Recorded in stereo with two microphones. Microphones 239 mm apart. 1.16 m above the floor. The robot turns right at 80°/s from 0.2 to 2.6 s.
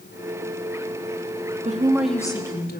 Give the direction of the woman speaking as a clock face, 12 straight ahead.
1 o'clock.